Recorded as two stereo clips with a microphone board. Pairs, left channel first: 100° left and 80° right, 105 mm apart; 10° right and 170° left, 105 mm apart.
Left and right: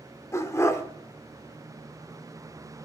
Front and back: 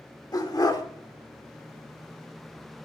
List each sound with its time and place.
0.3 s a dog barking: 40° left, 1.2 m